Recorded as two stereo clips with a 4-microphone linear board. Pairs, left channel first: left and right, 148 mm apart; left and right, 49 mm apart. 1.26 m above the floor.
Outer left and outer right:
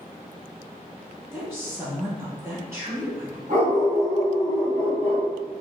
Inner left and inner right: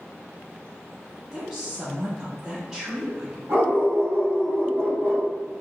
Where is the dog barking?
60° right (ahead or behind), 1.9 m.